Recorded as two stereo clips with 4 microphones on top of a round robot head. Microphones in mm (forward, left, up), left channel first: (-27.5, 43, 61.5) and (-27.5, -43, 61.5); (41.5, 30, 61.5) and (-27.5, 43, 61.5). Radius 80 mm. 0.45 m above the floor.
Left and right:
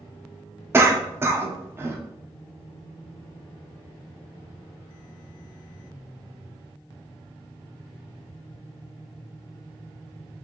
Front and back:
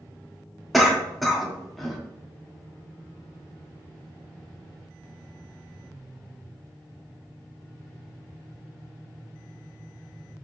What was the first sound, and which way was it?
A cough, 100° right.